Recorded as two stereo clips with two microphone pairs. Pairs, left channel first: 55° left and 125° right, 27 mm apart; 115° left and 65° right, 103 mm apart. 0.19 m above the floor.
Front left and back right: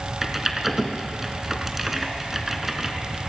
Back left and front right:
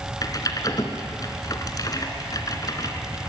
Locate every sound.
0.2 s typing on a keyboard: 155° left, 2 m